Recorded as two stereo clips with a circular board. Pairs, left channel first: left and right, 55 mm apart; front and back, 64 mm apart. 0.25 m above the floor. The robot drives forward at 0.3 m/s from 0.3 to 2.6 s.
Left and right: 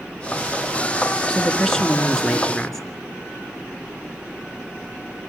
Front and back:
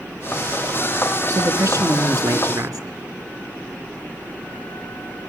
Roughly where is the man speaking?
Behind.